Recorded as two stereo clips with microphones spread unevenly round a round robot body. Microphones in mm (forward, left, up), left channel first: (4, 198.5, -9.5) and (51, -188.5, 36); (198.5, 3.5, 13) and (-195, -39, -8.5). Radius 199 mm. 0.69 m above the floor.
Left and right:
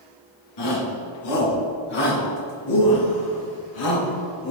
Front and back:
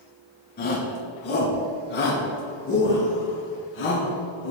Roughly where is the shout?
Left.